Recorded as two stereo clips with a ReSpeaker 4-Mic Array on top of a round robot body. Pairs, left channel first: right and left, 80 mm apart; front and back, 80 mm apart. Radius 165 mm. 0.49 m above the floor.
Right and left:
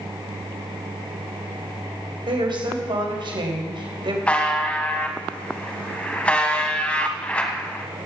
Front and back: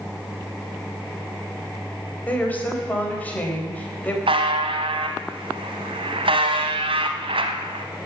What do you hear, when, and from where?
2.3 s a woman speaking: 70° left, 4 m
4.3 s a buzzer: 165° right, 0.8 m